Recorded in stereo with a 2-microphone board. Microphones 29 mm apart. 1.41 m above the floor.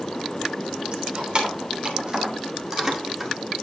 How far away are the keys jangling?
About 3 m.